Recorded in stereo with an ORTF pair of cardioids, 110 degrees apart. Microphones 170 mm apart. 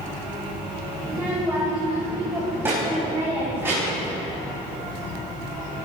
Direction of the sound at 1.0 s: 10° right.